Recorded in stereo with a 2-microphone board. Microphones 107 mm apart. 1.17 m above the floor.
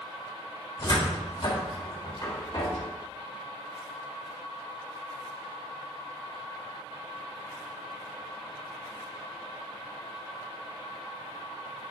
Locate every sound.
0.8 s a cupboard door: 40° left (ahead or behind), 1.7 m